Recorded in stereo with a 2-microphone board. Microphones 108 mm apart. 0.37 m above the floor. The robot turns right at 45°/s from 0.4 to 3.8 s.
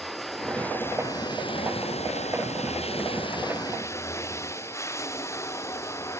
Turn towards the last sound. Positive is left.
turn(degrees=155)